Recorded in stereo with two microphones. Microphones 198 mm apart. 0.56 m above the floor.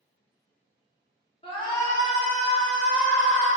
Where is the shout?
25° left (ahead or behind), 1.2 m; by 3.5 s 5° right (ahead or behind), 2.5 m.